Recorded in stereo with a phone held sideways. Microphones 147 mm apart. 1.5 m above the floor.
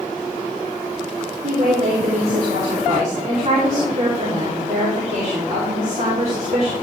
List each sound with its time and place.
1.4 s a woman speaking: 55° right (ahead or behind), 3 m